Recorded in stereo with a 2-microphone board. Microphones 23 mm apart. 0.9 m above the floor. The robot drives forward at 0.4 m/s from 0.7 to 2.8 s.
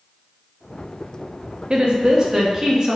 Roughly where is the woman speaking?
Right.